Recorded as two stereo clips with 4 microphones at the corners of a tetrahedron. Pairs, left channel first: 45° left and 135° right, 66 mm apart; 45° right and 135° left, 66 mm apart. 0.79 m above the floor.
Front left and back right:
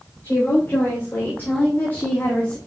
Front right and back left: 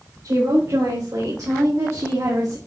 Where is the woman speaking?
105° left, 4.5 m; by 2.6 s 115° left, 1.4 m.